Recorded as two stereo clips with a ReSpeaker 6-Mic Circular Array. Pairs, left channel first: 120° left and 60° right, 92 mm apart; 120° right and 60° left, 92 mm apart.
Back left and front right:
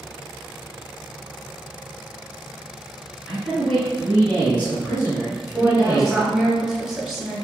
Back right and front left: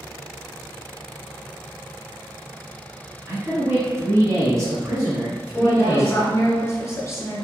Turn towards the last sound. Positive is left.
turn(degrees=-140)